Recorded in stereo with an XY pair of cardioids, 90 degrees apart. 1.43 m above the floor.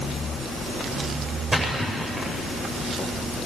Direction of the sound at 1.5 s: 30° right.